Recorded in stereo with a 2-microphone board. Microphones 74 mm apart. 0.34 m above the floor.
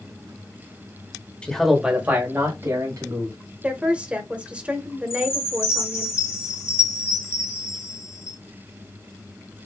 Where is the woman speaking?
20° right (ahead or behind), 1.0 m.